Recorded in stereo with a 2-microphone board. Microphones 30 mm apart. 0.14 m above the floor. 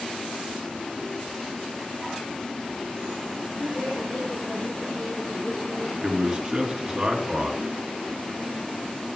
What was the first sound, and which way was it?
A woman speaking, 45° left (ahead or behind).